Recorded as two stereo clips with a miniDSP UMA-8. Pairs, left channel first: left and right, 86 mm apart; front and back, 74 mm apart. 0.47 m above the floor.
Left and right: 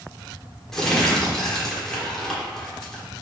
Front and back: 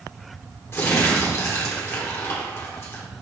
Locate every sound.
0.7 s crumpling: 10° left, 1.2 m